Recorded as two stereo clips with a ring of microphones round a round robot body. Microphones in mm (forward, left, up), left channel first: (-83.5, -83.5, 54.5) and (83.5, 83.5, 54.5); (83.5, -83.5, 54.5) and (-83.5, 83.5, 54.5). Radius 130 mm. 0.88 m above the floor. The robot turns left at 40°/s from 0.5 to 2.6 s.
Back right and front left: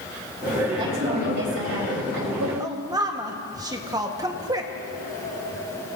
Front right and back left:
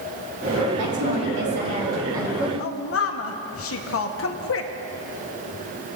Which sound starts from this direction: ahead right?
A woman speaking, at 2.6 s.